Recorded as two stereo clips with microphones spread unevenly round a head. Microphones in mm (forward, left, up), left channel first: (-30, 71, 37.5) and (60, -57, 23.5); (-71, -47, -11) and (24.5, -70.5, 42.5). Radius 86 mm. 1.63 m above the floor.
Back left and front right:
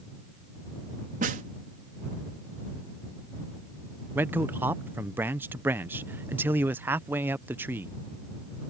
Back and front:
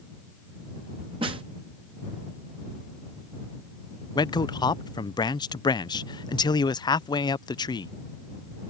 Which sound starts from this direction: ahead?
A snare drum, at 1.2 s.